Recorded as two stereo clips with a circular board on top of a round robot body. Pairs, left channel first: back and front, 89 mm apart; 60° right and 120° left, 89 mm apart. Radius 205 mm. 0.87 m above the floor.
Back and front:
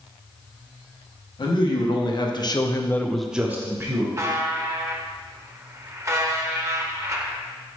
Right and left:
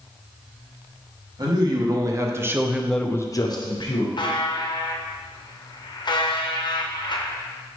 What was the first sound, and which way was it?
A man speaking, 155° left.